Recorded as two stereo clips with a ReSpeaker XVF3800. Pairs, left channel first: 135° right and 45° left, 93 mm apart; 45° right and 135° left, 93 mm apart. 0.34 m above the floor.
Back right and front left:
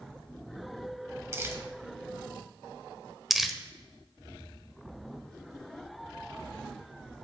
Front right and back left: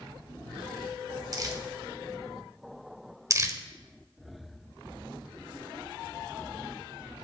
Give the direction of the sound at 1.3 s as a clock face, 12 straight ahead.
9 o'clock.